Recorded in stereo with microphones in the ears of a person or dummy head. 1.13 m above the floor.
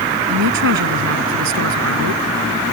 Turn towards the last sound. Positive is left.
turn(degrees=-65)  # may be behind; listen again after turning